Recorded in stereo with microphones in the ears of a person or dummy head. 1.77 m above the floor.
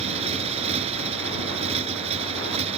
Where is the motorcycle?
35° right (ahead or behind).